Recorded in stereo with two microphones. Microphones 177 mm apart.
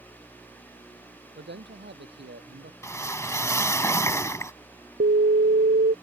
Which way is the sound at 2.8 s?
15° left (ahead or behind).